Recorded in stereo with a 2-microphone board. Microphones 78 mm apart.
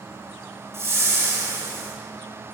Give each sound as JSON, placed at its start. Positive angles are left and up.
{"t": 0.7, "sound": "a whoosh", "side_deg": -35, "distance_m": 4.0}